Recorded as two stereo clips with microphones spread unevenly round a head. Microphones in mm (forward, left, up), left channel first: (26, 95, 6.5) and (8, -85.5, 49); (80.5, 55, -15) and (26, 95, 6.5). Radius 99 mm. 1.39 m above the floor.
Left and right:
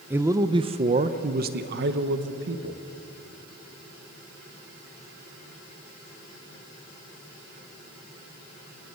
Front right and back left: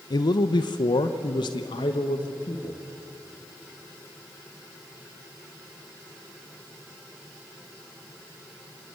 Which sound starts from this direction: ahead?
A man speaking, at 0.1 s.